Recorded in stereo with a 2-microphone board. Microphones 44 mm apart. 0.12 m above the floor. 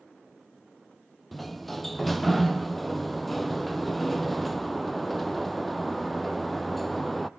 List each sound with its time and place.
1.3 s a sliding door: centre (ahead or behind), 0.7 m